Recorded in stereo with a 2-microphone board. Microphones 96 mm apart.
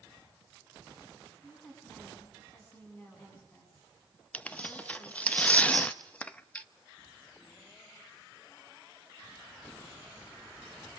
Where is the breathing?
No breathing in this recording.